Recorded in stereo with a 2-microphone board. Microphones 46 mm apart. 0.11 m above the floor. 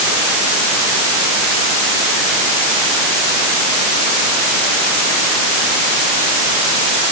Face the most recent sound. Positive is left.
No sound to turn to.